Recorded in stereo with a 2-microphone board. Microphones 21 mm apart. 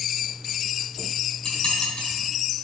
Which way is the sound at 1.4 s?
45° left (ahead or behind).